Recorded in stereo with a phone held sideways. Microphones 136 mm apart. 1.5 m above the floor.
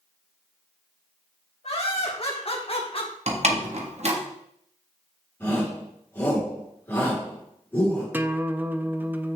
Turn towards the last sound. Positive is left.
turn(degrees=-15)  # may be behind; listen again after turning